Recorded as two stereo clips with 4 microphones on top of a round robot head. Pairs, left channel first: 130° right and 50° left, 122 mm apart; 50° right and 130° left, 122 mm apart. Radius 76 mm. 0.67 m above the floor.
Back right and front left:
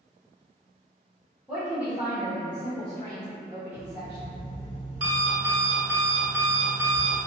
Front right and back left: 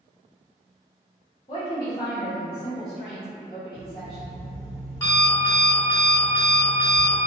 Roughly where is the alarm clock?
Ahead.